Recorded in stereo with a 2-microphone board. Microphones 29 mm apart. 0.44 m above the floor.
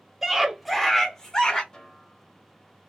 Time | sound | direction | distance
0.2 | a scream | 10° right (ahead or behind) | 1.4 m
1.7 | a snare drum | 30° left (ahead or behind) | 0.8 m